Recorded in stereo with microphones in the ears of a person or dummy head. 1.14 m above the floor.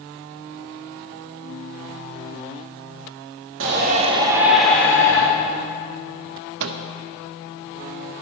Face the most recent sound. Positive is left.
turn(degrees=-70)  # may be behind; listen again after turning